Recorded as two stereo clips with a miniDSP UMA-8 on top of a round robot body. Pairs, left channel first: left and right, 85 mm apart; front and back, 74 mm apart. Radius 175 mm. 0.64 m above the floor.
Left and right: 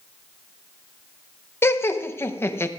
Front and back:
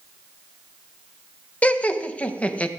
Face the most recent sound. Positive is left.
turn(degrees=55)